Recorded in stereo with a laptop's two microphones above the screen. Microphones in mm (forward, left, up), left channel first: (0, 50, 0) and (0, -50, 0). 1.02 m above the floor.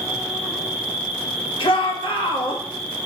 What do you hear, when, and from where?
0.0 s an insect: 15° right (ahead or behind), 1.3 m
1.6 s a shout: 65° left (ahead or behind), 1.2 m